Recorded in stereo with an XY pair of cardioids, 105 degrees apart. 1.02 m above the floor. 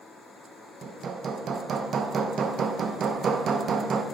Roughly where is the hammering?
Ahead right.